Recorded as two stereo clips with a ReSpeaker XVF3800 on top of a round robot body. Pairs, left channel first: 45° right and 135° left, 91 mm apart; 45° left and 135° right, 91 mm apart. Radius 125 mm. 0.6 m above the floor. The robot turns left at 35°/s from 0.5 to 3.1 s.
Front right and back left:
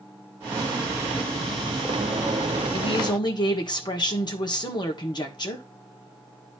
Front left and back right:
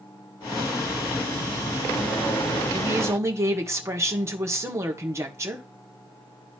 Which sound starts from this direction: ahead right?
A woman speaking, at 2.7 s.